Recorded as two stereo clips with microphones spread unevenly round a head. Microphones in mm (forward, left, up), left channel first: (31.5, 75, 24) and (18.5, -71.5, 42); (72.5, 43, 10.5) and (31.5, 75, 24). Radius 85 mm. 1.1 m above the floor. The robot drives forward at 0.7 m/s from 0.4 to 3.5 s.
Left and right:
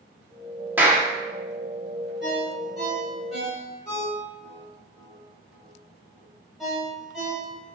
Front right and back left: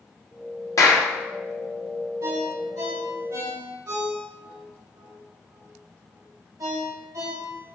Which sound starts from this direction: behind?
A ringtone, at 2.2 s.